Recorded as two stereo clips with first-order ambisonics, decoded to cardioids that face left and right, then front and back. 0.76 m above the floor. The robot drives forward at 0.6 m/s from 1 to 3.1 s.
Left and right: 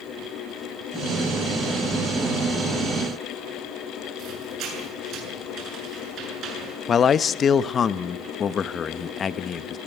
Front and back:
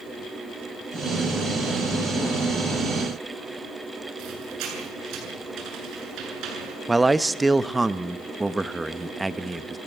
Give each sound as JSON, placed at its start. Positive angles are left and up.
{"t": 4.2, "sound": "a squeak", "azimuth_deg": -140, "distance_m": 7.5}
{"t": 6.9, "sound": "a man speaking", "azimuth_deg": 110, "distance_m": 0.6}